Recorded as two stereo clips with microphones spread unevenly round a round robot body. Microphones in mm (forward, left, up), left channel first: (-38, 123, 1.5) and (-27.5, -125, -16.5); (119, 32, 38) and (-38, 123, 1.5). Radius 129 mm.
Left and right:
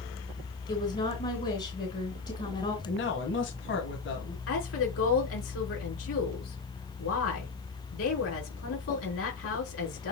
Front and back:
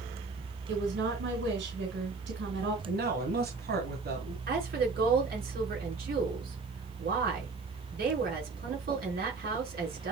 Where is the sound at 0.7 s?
155° left, 2.5 m.